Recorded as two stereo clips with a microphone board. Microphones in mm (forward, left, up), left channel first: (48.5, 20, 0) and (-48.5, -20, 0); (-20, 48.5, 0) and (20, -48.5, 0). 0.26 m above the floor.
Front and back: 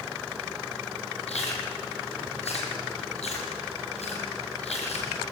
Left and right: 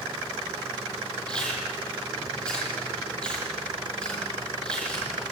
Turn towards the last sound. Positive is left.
turn(degrees=30)